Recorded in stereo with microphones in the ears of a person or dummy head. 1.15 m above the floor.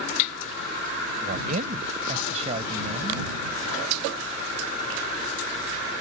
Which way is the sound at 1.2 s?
50° right (ahead or behind).